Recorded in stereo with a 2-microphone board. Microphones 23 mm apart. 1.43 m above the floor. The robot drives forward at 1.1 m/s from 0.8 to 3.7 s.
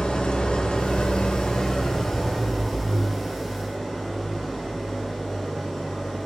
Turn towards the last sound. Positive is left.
turn(degrees=10)  # may be behind; listen again after turning